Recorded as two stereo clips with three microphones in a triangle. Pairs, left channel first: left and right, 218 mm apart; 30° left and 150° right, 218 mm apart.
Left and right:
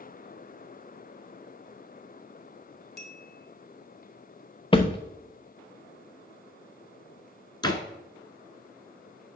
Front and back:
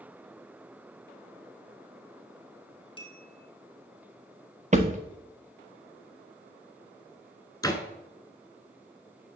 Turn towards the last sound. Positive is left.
turn(degrees=70)